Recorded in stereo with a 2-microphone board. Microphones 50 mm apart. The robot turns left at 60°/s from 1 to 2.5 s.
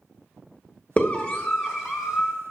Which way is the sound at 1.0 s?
30° left (ahead or behind).